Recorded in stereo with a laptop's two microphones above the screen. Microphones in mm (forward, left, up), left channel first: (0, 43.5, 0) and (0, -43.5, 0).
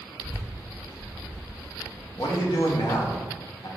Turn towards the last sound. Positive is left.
turn(degrees=55)  # may be behind; listen again after turning